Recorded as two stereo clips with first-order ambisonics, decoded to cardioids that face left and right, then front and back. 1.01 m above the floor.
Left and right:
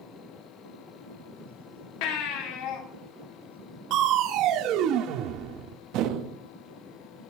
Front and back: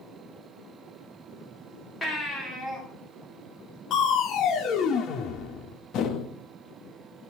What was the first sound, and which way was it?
A baby crying, 75° left.